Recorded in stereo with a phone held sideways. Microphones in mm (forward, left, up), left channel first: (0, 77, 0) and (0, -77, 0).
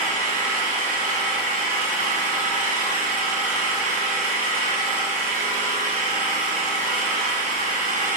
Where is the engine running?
60° right (ahead or behind), 2.5 m.